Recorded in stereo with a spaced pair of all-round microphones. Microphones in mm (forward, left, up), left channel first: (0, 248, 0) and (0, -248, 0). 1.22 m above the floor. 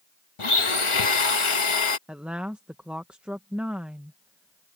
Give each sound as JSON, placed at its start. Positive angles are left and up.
{"t": 0.4, "sound": "a blender", "side_deg": 75}
{"t": 2.1, "sound": "a woman speaking", "side_deg": 0}